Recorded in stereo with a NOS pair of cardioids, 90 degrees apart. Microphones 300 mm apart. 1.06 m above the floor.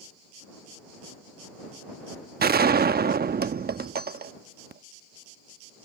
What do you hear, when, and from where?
2.4 s a gunshot: 30° right